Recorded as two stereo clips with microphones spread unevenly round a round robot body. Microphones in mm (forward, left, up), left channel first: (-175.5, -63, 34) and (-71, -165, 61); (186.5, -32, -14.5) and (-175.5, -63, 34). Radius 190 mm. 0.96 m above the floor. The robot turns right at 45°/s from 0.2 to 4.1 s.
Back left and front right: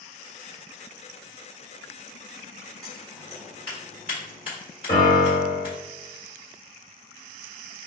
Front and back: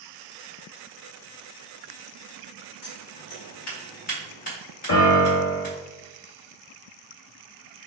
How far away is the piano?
About 0.9 m.